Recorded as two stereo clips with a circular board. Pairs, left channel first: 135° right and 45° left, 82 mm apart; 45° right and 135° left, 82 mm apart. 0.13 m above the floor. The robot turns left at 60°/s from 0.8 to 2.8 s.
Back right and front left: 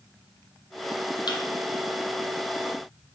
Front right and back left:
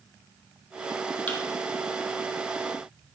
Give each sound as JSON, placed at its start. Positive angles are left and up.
{"t": 1.3, "sound": "a thud", "azimuth_deg": -115, "distance_m": 2.0}